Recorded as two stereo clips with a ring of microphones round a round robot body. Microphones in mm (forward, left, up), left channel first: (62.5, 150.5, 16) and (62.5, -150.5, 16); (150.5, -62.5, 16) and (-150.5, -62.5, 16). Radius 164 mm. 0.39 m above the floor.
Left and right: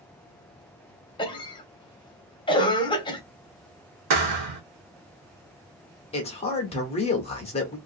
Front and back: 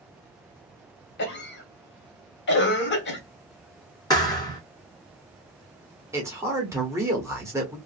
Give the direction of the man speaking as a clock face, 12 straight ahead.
8 o'clock.